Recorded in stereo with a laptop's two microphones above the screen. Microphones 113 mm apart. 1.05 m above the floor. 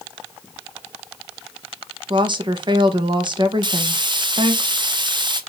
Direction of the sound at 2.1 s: 45° right (ahead or behind).